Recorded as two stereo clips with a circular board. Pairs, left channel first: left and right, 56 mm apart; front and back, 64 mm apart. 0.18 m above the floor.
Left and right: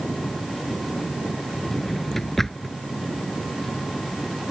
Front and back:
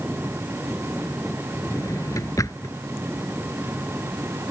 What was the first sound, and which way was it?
A drawer, 5° left.